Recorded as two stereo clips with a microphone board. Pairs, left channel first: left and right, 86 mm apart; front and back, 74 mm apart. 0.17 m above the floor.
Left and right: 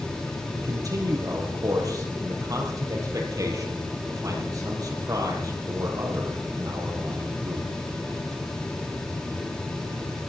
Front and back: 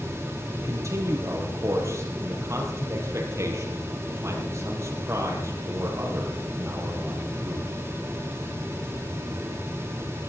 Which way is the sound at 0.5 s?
135° right.